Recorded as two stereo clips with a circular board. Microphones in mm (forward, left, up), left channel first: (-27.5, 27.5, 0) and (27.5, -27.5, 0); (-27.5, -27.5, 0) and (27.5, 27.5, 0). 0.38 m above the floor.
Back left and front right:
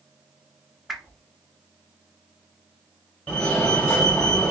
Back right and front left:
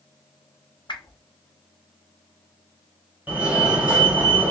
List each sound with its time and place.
0.9 s a whoosh: 135° right, 0.8 m
3.3 s a fire alarm: 90° left, 1.8 m